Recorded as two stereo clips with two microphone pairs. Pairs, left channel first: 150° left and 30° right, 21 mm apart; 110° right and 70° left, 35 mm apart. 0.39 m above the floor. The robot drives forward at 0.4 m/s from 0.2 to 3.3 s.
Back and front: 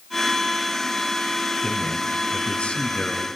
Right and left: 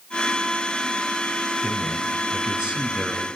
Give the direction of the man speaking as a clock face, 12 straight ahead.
8 o'clock.